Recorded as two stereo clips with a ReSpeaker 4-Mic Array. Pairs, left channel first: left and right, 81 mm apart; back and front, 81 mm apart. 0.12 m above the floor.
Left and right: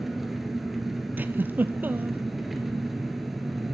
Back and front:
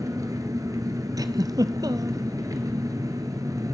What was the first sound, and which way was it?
An engine running, 5° right.